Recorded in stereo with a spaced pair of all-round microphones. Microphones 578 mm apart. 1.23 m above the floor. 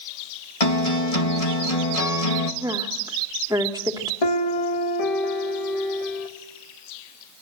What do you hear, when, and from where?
0.6 s a guitar: 75° left (ahead or behind), 2 m
2.6 s a woman speaking: 5° right (ahead or behind), 2.5 m
4.2 s a piano: 80° left, 2 m